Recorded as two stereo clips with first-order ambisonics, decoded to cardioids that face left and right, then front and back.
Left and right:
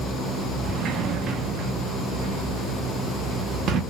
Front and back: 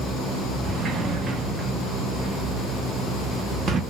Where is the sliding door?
125° right, 0.6 m.